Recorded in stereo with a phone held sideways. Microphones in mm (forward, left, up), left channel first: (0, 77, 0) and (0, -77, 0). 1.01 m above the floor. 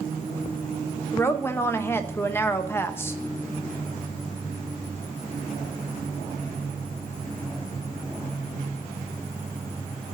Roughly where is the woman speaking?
Centre.